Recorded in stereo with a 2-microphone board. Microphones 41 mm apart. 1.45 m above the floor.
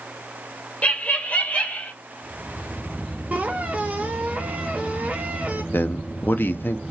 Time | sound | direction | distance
0.8 | laughter | 35° left (ahead or behind) | 0.8 m
3.3 | a squeak | 35° right (ahead or behind) | 1.0 m
5.7 | a man speaking | 60° left (ahead or behind) | 0.6 m